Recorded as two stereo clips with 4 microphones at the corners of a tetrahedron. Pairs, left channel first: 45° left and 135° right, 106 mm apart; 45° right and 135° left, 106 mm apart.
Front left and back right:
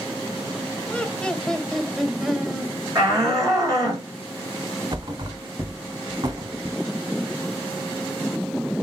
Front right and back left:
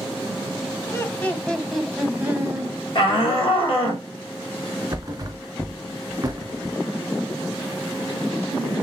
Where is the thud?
175° right, 1.2 m.